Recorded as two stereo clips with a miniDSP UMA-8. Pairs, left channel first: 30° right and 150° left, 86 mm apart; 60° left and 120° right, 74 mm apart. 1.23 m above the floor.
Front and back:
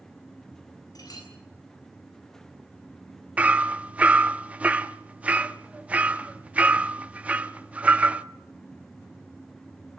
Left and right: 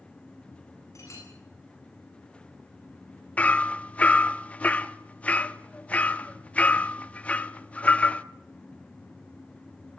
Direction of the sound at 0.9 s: 15° left.